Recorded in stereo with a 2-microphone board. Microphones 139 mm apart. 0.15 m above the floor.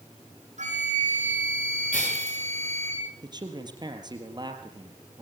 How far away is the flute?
About 7 m.